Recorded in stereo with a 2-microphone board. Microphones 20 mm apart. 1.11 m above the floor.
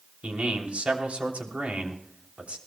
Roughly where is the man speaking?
Right.